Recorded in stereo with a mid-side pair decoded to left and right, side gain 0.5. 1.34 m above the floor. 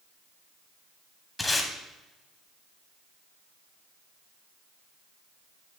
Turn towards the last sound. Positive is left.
turn(degrees=20)